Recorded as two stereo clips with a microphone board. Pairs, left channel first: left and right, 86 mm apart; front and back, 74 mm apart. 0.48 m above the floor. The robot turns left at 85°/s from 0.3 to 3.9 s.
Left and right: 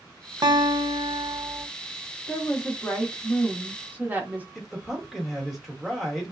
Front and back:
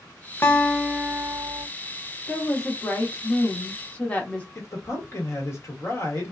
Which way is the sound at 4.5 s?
Straight ahead.